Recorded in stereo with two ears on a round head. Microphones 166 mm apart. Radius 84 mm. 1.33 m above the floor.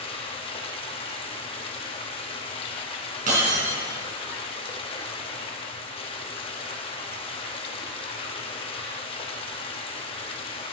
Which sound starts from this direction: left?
Running water, at 0.0 s.